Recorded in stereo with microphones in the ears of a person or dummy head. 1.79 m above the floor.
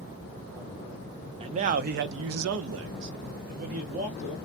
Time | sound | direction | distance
1.4 | a man speaking | 30° right (ahead or behind) | 0.6 m